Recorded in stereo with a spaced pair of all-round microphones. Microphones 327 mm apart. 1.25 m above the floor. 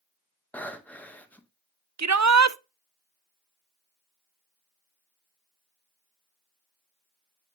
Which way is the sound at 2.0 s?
55° right (ahead or behind).